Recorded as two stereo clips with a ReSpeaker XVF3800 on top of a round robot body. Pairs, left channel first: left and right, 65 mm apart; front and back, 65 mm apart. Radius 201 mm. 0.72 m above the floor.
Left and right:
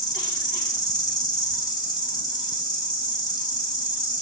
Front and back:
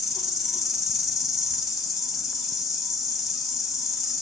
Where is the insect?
90° left, 2.5 m.